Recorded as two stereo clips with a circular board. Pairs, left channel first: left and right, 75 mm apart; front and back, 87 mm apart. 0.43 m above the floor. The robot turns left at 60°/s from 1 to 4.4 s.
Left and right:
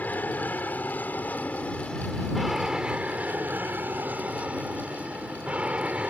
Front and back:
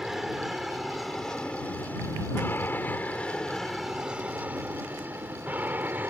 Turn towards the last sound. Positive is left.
turn(degrees=-145)